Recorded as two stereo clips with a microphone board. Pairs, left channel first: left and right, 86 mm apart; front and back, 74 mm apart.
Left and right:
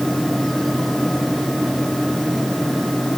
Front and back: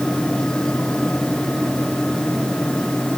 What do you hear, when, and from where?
Only background noise.